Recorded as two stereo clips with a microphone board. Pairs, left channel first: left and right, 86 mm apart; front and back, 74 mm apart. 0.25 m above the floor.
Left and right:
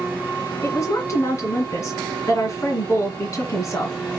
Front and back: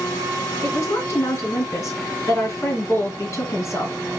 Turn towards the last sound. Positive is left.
turn(degrees=40)